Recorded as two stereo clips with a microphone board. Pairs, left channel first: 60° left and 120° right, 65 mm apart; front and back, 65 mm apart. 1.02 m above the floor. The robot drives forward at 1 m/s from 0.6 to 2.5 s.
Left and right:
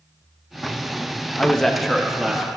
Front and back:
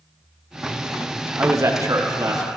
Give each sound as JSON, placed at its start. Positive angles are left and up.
{"t": 1.4, "sound": "a man speaking", "azimuth_deg": 130, "distance_m": 0.7}